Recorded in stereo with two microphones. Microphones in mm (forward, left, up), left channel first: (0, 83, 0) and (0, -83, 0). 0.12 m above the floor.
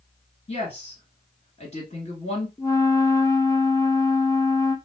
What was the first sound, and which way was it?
A woman speaking, 40° left (ahead or behind).